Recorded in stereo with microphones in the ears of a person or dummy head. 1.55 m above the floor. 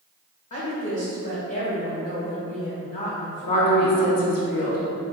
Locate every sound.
0.5 s a woman speaking: 45° left (ahead or behind), 1.5 m
3.4 s a woman speaking: 50° left (ahead or behind), 1.1 m